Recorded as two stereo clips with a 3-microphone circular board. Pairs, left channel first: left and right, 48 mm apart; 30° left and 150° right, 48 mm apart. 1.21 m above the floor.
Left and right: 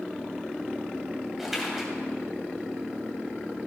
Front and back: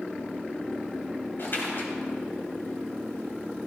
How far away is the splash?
About 3 m.